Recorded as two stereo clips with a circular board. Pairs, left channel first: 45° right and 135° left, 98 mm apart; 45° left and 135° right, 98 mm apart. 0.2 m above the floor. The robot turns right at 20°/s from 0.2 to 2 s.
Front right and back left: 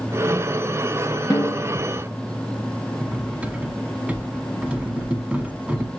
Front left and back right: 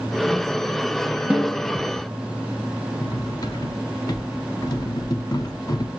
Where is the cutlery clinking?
65° left, 0.7 m.